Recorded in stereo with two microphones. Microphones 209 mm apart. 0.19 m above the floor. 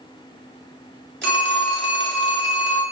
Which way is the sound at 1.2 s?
60° right (ahead or behind).